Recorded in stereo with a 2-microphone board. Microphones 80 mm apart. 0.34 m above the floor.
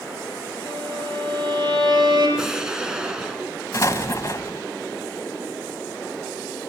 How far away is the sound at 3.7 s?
About 1.0 m.